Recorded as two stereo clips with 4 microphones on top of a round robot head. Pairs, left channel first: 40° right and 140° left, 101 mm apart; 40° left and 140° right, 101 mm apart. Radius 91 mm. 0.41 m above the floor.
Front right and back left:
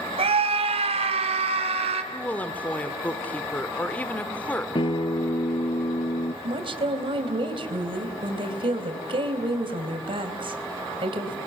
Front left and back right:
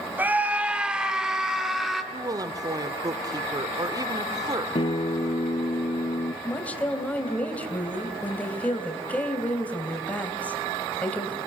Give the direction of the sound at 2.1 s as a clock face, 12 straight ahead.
4 o'clock.